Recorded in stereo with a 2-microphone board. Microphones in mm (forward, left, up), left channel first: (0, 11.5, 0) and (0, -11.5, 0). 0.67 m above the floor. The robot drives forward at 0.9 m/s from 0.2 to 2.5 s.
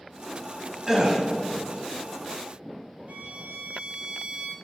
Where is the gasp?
20° right (ahead or behind), 1.3 m; by 1.2 s 25° right (ahead or behind), 1.0 m.